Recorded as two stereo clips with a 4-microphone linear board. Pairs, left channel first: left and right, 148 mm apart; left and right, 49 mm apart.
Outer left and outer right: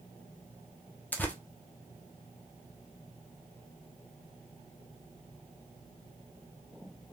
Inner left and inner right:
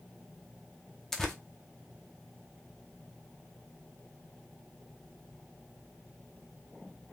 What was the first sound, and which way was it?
Tearing paper, 10° left (ahead or behind).